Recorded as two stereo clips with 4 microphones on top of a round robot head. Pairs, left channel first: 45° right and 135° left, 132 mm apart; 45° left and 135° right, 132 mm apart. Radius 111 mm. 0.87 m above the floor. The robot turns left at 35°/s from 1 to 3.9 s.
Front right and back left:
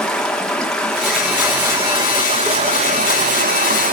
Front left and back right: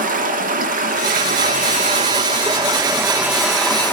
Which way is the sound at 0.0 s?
135° right.